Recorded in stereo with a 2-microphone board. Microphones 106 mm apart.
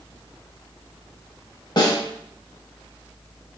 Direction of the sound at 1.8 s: 45° left (ahead or behind).